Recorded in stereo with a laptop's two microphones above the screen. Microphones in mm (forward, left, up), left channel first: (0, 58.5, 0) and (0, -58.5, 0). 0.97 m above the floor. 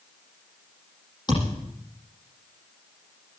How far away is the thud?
About 8 m.